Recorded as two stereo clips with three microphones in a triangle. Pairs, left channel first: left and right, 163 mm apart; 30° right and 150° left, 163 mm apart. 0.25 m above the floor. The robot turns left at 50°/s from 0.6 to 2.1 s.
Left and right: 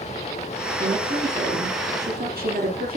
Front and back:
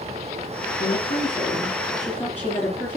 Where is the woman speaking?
45° right, 4 m; by 3.0 s 110° right, 4 m.